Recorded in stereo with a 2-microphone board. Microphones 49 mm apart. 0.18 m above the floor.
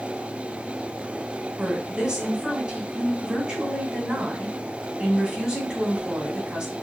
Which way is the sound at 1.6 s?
15° right (ahead or behind).